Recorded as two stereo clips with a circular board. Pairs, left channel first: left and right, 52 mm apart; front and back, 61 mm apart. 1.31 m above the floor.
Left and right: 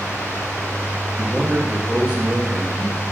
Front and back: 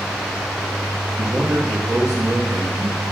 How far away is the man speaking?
About 2.5 m.